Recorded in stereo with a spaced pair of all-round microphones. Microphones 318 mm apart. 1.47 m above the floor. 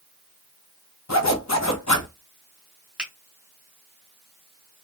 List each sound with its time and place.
1.1 s a zipper: 55° left (ahead or behind), 0.9 m
3.0 s a finger snap: 5° right (ahead or behind), 1.5 m